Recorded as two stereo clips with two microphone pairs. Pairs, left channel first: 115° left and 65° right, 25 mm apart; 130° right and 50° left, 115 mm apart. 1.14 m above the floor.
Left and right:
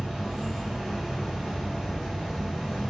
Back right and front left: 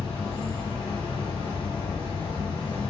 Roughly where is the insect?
Behind right.